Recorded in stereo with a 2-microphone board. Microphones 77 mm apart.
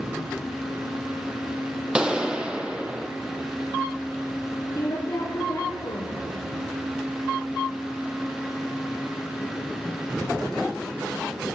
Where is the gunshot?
10° right (ahead or behind), 0.9 m.